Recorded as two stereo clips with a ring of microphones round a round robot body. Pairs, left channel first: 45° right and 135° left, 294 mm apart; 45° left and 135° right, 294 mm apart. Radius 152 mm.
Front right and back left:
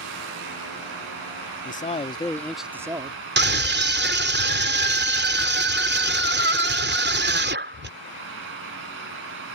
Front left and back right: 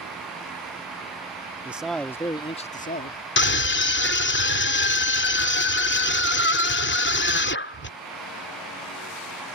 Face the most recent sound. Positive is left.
turn(degrees=90)